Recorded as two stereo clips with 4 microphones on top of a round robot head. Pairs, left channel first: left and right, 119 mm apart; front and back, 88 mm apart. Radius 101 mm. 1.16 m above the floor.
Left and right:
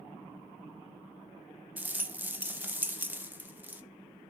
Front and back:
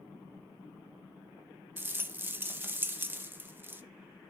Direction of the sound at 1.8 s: 150° right.